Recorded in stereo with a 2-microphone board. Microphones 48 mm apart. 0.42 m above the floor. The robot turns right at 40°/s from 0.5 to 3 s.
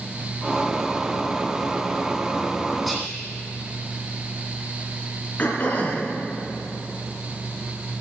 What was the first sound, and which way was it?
Whispering, 5° left (ahead or behind).